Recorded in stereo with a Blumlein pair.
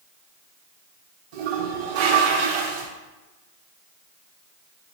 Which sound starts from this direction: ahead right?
A toilet flushing, at 1.3 s.